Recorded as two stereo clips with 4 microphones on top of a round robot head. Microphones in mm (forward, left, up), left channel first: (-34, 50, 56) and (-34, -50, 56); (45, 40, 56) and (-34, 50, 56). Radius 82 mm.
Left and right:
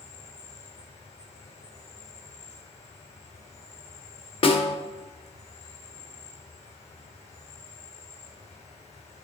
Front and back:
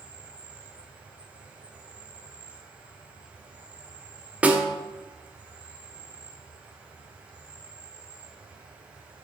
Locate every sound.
0.0 s an insect: 100° left, 2.5 m
4.4 s a snare drum: 100° left, 1.6 m